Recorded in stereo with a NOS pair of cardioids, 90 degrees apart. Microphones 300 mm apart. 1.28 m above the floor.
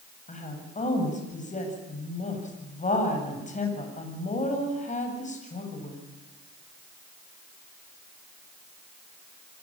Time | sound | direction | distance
0.3 | a woman speaking | 25° left | 7.5 m